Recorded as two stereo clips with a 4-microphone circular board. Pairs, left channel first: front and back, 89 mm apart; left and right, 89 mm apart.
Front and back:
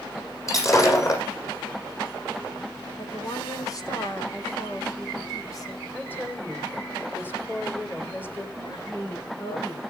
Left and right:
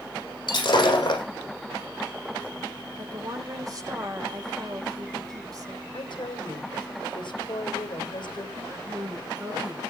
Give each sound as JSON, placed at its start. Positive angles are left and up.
{"t": 0.5, "sound": "breaking glass", "azimuth_deg": 55, "distance_m": 7.0}
{"t": 3.0, "sound": "a woman speaking", "azimuth_deg": -45, "distance_m": 3.0}
{"t": 5.9, "sound": "a woman speaking", "azimuth_deg": 65, "distance_m": 3.0}
{"t": 8.6, "sound": "a woman speaking", "azimuth_deg": -35, "distance_m": 6.5}